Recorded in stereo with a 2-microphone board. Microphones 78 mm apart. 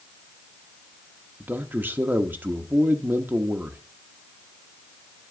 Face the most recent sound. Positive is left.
turn(degrees=-25)  # may be behind; listen again after turning